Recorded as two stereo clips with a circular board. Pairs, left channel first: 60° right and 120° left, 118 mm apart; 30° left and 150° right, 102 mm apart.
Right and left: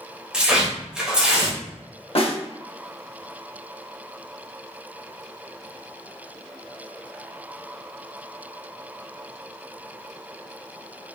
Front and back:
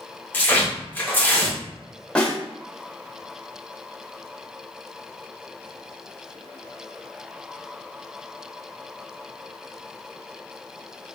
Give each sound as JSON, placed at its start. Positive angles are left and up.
{"t": 0.3, "sound": "tearing paper", "azimuth_deg": 50, "distance_m": 0.9}
{"t": 2.1, "sound": "a snare drum", "azimuth_deg": -45, "distance_m": 0.6}